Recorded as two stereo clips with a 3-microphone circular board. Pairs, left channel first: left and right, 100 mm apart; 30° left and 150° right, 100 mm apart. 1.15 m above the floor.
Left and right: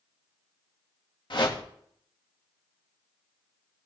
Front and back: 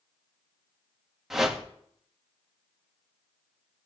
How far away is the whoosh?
About 1.8 m.